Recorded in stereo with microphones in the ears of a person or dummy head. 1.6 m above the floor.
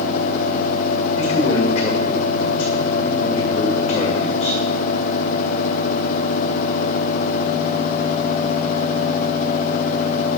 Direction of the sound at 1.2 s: 35° left (ahead or behind).